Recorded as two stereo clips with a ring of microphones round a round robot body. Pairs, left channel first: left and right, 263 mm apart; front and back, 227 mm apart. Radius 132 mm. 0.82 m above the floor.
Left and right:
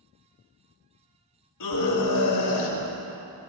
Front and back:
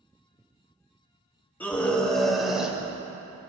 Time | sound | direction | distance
1.6 | a scream | 80° left | 4.5 m